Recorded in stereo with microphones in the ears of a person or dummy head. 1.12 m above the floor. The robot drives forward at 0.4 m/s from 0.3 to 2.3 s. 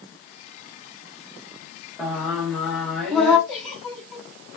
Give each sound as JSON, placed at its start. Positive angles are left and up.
{"t": 2.0, "sound": "singing", "side_deg": 0, "distance_m": 0.7}
{"t": 3.5, "sound": "a giggle", "side_deg": -5, "distance_m": 2.5}